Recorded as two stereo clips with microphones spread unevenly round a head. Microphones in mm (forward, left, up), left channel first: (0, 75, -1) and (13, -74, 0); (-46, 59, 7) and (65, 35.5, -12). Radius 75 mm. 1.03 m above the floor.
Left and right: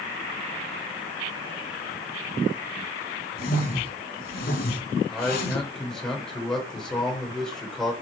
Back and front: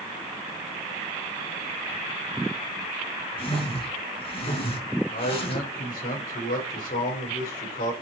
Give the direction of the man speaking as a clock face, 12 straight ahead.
6 o'clock.